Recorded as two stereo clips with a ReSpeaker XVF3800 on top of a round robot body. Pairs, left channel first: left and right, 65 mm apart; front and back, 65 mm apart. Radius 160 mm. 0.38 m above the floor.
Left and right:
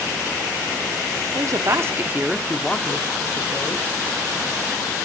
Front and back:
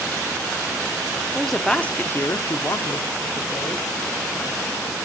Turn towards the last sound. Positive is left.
turn(degrees=40)